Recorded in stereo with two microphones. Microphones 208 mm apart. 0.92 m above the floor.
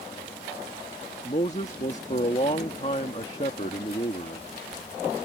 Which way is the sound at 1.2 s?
35° left (ahead or behind).